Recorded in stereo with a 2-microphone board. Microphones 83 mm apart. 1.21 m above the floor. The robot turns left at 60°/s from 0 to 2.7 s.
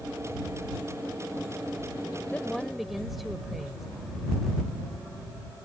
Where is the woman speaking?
20° left (ahead or behind); by 3.9 s centre (ahead or behind).